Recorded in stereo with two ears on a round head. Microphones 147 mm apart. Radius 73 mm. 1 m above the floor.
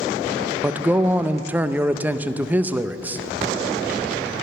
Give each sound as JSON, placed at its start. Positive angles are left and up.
{"t": 0.6, "sound": "a man speaking", "side_deg": -10, "distance_m": 0.6}